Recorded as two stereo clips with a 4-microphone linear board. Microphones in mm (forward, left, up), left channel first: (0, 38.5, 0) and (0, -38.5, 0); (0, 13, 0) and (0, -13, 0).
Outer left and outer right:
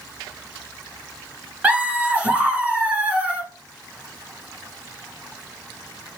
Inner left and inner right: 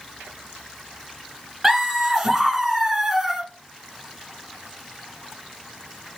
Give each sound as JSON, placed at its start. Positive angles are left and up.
{"t": 1.6, "sound": "laughter", "side_deg": -15, "distance_m": 1.2}